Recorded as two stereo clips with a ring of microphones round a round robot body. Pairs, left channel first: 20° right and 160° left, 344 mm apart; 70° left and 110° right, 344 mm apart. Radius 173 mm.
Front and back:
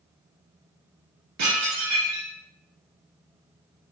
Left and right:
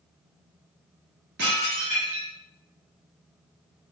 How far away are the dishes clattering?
About 1.7 m.